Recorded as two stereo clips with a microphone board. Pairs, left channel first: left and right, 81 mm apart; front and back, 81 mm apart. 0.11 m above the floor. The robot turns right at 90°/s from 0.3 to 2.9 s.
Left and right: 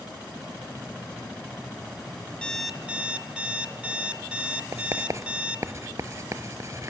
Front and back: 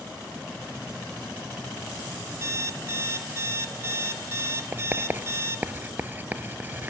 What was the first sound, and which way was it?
An alarm clock, 160° left.